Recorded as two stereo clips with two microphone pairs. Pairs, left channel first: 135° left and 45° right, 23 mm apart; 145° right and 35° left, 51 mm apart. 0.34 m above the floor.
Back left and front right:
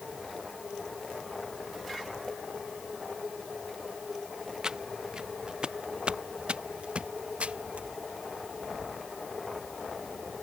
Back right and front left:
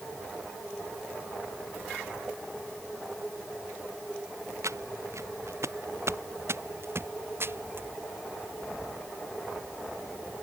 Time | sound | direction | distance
4.6 | footsteps | 20° left | ?